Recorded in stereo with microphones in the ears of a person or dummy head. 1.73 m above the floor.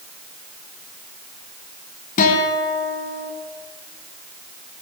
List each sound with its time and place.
2.2 s a guitar: 45° left (ahead or behind), 4.5 m